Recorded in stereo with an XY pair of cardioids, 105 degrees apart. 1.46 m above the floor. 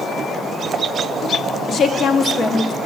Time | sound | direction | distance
1.7 | a woman speaking | 50° left | 0.8 m